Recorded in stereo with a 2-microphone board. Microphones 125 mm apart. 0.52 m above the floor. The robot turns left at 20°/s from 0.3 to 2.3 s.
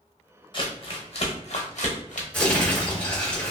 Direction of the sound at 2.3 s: 10° left (ahead or behind).